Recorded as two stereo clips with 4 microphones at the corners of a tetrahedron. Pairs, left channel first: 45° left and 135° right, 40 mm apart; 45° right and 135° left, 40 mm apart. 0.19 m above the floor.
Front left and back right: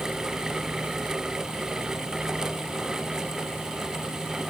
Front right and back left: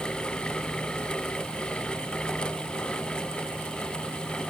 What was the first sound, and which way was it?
Only background noise.